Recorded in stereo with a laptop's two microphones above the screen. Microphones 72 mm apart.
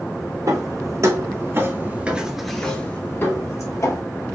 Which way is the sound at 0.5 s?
60° right (ahead or behind).